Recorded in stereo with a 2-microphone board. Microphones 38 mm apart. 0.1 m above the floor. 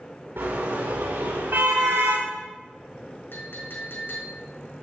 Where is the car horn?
75° right (ahead or behind), 7 m.